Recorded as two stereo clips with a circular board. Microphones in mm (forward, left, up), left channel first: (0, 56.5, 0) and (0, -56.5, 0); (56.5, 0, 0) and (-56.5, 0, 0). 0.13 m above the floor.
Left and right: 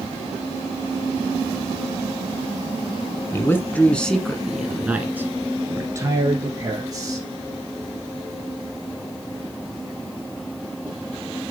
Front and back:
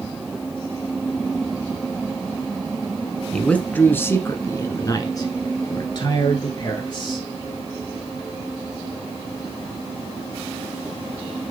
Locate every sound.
3.3 s a man speaking: 70° left, 1.1 m; by 7.3 s 45° right, 2 m